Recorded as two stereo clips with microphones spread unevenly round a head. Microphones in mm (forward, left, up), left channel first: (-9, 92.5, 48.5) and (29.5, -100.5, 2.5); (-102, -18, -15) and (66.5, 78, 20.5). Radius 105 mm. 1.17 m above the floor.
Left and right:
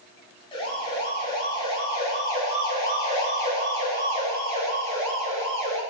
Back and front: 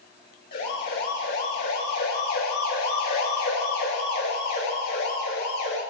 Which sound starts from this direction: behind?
A siren, at 0.5 s.